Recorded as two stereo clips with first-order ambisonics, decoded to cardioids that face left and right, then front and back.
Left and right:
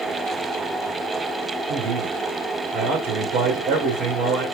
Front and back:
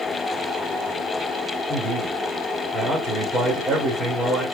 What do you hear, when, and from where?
1.7 s a man speaking: 110° right, 3 m